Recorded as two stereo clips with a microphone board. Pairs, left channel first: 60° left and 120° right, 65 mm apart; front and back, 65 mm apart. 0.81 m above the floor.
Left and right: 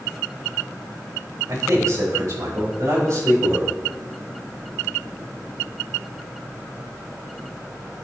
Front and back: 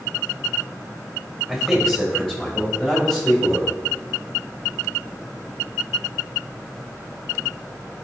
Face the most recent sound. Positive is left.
turn(degrees=-75)